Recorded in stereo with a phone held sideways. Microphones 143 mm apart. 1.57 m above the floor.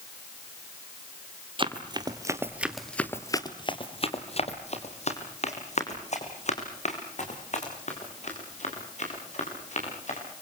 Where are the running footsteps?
35° right (ahead or behind), 2.5 m; by 10.2 s 55° left (ahead or behind), 11.5 m.